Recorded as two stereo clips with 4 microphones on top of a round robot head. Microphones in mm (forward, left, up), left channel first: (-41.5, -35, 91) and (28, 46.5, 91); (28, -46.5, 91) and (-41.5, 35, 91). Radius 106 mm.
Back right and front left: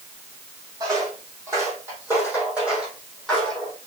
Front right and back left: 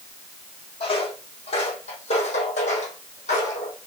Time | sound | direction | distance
0.8 | footsteps | 10° right | 4 m